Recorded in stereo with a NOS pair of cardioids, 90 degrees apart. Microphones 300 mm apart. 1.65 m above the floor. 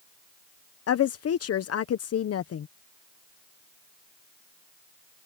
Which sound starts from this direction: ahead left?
A woman speaking, at 0.9 s.